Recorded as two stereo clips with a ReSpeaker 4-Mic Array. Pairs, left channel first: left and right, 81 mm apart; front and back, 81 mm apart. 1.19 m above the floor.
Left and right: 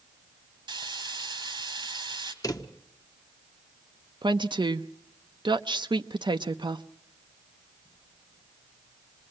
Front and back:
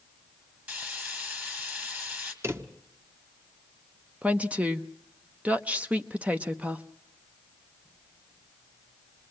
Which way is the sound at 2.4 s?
130° left.